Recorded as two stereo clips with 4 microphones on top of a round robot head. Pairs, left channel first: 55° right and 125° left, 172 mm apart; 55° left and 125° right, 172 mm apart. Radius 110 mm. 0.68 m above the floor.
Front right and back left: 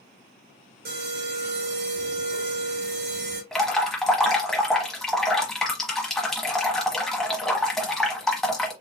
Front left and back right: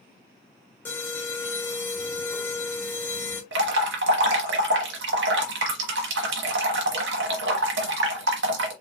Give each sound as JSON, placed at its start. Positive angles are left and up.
{"t": 0.8, "sound": "an alarm", "azimuth_deg": 135, "distance_m": 2.5}
{"t": 3.5, "sound": "dripping", "azimuth_deg": -145, "distance_m": 1.1}